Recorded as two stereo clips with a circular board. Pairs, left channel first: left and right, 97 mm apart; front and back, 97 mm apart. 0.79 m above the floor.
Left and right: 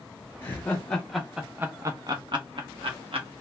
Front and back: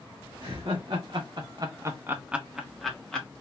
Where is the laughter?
155° left, 0.9 m; by 3.3 s 80° right, 1.1 m.